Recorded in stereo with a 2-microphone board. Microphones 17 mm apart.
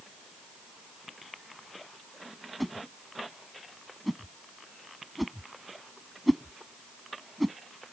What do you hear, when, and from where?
2.6 s a whoosh: centre (ahead or behind)